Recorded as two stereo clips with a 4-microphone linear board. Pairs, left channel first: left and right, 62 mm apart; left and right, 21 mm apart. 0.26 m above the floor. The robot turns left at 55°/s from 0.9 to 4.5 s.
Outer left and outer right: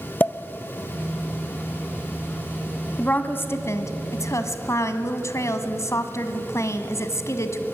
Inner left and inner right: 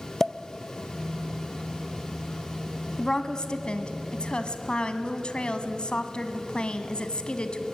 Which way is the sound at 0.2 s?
30° left (ahead or behind).